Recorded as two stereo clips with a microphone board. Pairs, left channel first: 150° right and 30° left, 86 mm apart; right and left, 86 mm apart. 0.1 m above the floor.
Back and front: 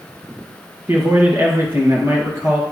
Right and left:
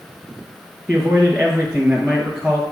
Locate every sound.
0.9 s a man speaking: 20° left, 2.0 m